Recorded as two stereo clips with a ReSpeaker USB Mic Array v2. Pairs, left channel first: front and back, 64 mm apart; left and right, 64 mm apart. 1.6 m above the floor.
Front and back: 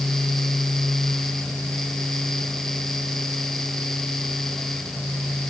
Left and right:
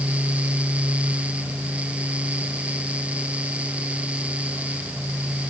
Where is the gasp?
I don't hear a gasp.